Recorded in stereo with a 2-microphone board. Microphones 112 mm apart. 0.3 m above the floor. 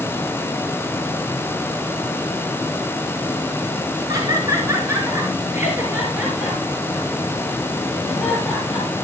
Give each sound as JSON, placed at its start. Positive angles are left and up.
{"t": 4.1, "sound": "laughter", "side_deg": -35, "distance_m": 4.0}